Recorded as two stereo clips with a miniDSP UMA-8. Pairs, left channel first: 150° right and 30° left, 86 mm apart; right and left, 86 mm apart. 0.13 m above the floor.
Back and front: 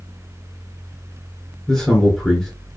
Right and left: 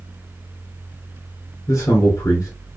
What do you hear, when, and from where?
1.7 s a man speaking: 65° right, 2.5 m